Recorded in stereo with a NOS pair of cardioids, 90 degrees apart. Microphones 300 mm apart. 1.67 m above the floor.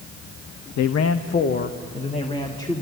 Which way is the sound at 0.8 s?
65° left.